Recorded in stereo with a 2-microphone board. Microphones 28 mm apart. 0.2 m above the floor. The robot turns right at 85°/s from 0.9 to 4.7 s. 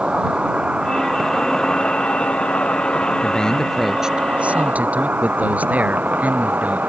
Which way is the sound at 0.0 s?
40° right.